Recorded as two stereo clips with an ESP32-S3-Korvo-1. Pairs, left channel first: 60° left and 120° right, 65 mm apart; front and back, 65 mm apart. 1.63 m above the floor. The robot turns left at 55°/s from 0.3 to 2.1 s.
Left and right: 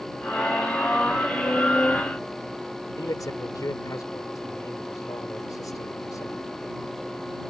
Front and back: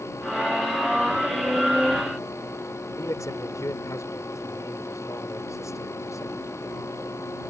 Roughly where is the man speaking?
Ahead left.